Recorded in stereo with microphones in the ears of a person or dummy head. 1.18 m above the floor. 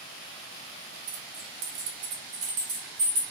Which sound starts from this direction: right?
Keys jangling, at 1.1 s.